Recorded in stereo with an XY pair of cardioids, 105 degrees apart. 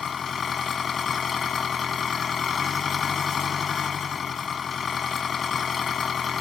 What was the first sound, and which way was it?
An engine running, 45° left.